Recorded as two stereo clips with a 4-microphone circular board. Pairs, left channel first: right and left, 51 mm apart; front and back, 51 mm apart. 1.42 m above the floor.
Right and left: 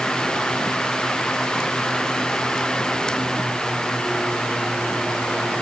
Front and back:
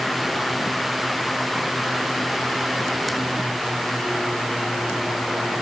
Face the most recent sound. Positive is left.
No sound to turn to.